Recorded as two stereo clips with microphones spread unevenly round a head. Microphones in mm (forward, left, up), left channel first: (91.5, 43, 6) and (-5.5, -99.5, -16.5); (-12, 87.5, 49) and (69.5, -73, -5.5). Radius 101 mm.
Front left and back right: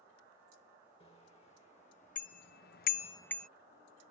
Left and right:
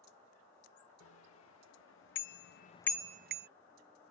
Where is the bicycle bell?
120° left; by 3.5 s 30° right.